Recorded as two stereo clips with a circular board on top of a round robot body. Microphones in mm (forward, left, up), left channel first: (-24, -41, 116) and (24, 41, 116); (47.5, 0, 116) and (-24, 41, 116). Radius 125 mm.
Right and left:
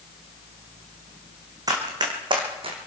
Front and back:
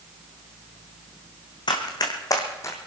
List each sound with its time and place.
1.7 s running footsteps: 5° left, 1.9 m; by 2.8 s 30° left, 1.7 m